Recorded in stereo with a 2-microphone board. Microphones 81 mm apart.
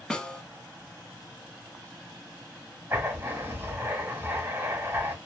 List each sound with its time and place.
0.1 s a snare drum: 10° left (ahead or behind), 0.6 m
2.9 s writing: 25° right (ahead or behind), 1.3 m